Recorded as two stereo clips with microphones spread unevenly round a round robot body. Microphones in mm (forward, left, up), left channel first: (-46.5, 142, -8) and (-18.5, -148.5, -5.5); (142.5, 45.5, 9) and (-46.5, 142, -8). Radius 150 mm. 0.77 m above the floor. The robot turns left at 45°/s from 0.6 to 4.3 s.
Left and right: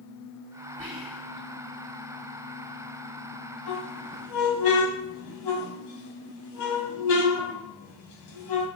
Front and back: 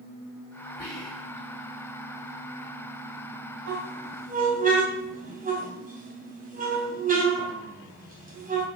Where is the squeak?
130° left, 2.5 m; by 8.7 s 100° left, 2.5 m.